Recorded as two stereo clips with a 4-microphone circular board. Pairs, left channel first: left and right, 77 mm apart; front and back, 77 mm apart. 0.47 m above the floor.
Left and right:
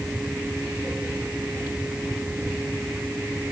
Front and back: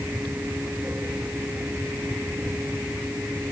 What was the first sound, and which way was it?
Only background noise.